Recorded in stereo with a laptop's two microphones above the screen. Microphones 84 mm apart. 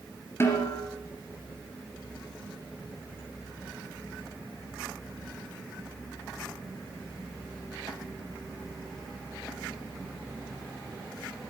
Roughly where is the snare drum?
Left.